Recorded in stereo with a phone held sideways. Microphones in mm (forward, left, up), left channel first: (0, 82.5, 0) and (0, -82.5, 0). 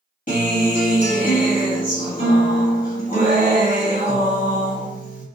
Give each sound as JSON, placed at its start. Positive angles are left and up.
{"t": 0.3, "sound": "a guitar", "side_deg": 60, "distance_m": 1.4}